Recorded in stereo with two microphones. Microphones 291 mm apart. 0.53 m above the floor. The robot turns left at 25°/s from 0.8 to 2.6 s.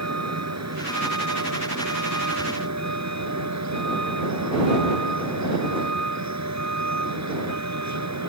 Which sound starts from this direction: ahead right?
A vehicle, at 0.0 s.